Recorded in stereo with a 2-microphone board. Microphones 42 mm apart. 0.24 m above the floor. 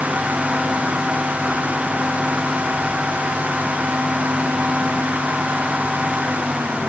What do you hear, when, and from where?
Only background noise.